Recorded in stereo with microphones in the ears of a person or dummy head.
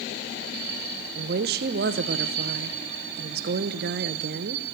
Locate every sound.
1.1 s a woman speaking: 50° right (ahead or behind), 0.6 m